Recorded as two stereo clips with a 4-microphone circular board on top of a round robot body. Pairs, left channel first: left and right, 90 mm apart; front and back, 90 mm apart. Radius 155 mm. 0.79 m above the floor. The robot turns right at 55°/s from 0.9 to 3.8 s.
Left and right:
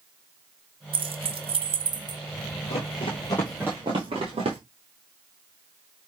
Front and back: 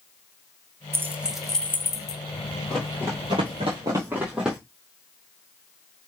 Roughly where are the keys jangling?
Behind right.